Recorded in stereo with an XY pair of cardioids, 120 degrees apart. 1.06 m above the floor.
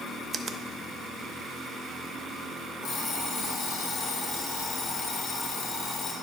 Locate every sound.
0.3 s a finger snap: 30° right, 0.7 m
2.8 s an alarm clock: 55° left, 3.5 m